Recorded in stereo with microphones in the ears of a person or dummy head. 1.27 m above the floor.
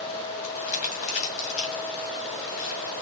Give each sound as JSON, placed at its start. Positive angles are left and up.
{"t": 0.4, "sound": "crumpling", "side_deg": 45, "distance_m": 2.0}